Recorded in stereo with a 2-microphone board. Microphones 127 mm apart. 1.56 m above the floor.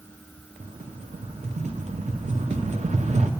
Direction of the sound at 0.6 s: 65° right (ahead or behind).